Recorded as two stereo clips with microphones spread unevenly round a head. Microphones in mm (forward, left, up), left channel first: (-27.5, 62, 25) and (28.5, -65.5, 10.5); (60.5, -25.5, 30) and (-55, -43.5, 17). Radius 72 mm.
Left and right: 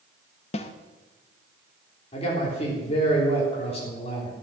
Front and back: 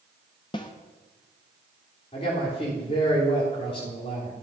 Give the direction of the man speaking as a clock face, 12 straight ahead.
10 o'clock.